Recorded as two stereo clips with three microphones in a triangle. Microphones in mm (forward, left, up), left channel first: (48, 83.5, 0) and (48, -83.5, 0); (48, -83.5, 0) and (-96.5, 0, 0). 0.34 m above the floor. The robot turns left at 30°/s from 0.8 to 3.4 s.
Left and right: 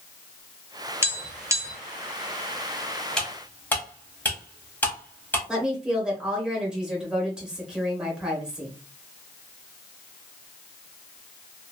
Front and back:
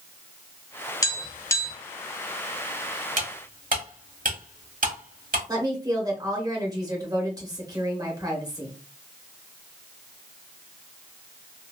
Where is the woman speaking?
170° right, 1.1 m.